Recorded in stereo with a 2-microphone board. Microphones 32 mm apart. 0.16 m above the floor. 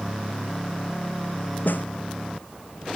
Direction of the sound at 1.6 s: 80° left.